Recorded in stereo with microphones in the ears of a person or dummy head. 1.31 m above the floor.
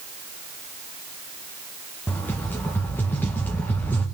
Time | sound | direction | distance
2.1 | a rattle | 10° left (ahead or behind) | 1.7 m